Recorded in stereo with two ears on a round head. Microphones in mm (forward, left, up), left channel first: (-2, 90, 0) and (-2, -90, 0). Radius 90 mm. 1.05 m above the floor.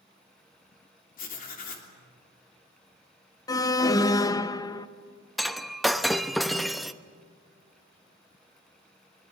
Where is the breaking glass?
Centre (ahead or behind), 0.7 m.